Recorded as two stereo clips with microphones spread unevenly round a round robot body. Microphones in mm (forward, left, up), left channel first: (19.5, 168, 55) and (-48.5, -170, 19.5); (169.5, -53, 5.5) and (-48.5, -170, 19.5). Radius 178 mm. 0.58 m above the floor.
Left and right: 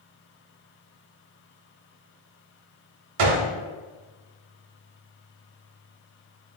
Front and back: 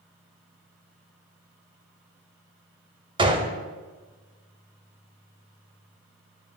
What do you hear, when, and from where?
3.2 s a gunshot: 85° right, 0.6 m